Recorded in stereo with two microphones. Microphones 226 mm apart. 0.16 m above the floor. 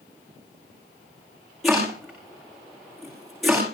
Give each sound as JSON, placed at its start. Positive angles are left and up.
{"t": 1.6, "sound": "chopping", "side_deg": 0, "distance_m": 8.5}